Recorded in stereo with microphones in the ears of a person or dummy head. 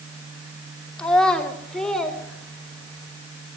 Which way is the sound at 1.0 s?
5° left (ahead or behind).